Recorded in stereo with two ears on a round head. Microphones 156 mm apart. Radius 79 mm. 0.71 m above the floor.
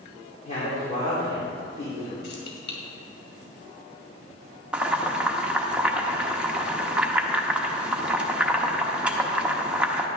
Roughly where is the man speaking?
Left.